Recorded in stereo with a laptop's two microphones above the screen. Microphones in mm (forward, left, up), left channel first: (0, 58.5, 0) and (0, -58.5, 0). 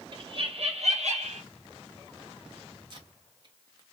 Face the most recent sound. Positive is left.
turn(degrees=-40)  # may be behind; listen again after turning